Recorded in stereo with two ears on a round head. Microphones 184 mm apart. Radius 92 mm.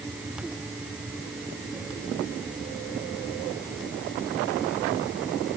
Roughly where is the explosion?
No explosion in this recording.